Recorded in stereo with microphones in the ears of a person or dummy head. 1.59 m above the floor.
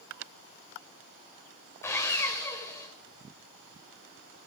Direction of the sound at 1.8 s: 15° left (ahead or behind).